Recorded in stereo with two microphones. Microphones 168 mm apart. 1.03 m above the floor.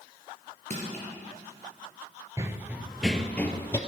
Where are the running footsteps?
20° right (ahead or behind), 1.1 m; by 3.8 s 15° left (ahead or behind), 1.5 m.